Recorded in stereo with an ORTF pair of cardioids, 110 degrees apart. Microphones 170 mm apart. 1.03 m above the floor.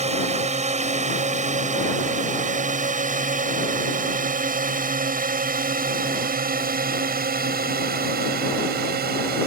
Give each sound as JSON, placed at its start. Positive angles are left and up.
{"t": 0.0, "sound": "a drone", "azimuth_deg": -45}